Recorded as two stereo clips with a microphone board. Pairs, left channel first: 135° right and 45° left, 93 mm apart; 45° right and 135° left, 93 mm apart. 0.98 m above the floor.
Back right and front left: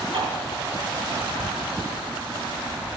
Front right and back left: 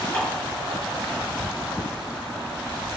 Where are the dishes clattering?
30° left, 8.5 m.